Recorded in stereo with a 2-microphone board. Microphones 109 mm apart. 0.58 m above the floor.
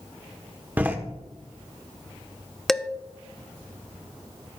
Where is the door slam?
15° right (ahead or behind), 1.1 m.